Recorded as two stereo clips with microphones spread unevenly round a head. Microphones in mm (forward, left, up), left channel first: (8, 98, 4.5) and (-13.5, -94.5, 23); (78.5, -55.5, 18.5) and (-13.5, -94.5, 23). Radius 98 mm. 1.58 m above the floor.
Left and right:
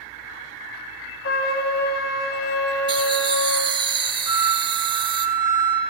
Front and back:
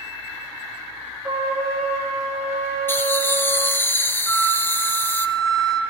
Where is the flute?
30° right, 6 m.